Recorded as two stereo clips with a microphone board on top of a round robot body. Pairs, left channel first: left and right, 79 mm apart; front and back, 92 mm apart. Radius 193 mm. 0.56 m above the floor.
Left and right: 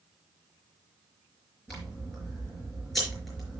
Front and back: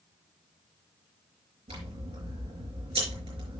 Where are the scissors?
Straight behind, 5 m.